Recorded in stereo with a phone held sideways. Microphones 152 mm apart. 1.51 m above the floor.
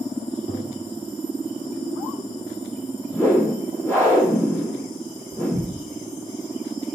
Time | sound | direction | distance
0.5 | tapping | 80° left | 4.5 m
3.1 | a whoosh | 15° left (ahead or behind) | 3.5 m